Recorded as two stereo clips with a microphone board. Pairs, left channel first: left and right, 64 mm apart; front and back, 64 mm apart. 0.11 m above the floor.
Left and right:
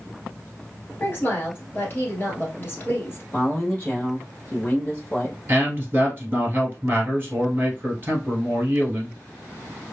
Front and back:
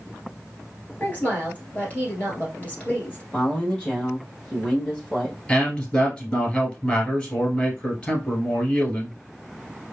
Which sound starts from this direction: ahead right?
A man speaking, at 5.5 s.